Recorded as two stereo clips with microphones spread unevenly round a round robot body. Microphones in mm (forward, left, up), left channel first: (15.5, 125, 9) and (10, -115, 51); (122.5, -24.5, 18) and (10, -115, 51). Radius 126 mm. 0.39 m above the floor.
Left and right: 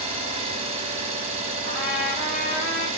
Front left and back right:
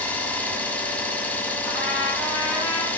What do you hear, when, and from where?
0.0 s an engine running: 20° right, 0.7 m
1.6 s a trumpet: 105° left, 1.2 m